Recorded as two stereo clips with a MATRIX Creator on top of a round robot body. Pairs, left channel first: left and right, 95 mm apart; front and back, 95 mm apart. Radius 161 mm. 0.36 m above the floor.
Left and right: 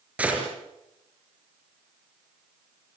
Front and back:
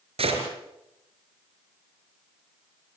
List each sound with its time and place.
0.2 s a gunshot: 165° right, 5 m